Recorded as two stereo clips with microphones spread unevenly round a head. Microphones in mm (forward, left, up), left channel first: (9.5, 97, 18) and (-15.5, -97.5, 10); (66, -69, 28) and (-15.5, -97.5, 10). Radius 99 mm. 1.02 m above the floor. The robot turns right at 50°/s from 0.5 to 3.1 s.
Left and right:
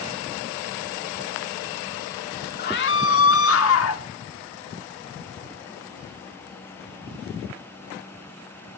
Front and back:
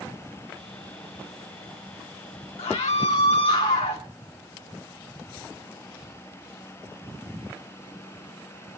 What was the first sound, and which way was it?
A scream, 35° left.